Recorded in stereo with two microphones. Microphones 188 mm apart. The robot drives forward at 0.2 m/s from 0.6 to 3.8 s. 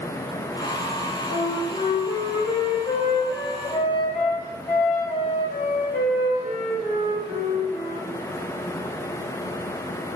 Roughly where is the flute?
Left.